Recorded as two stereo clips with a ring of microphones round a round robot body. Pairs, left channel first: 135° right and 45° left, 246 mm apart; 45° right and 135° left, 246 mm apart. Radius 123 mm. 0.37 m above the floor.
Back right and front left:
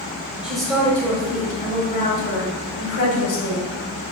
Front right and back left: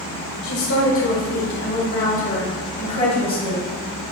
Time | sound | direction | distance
0.4 | a woman speaking | 40° right | 2.0 m